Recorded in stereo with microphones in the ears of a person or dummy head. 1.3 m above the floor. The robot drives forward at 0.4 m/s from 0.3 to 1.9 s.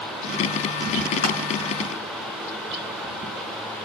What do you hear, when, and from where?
1.2 s crushing: 40° left (ahead or behind), 3.5 m